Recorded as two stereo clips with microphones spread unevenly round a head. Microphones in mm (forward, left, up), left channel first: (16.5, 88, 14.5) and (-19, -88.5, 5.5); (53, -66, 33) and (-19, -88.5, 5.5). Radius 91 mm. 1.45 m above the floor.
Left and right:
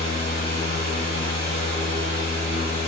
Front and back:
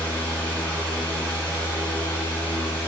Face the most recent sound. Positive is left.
turn(degrees=-55)